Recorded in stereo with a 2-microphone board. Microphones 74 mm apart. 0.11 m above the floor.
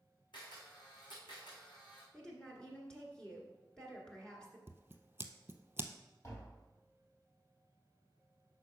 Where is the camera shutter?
75° left (ahead or behind), 3.5 m.